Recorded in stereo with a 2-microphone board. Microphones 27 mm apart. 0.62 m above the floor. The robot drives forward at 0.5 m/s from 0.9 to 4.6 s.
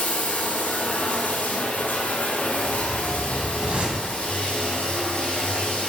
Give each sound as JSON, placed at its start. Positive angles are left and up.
{"t": 0.0, "sound": "running water", "side_deg": 70, "distance_m": 1.8}
{"t": 2.6, "sound": "a whoosh", "side_deg": -75, "distance_m": 1.0}